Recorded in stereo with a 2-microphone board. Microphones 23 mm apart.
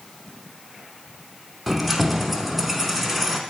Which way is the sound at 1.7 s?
Centre (ahead or behind).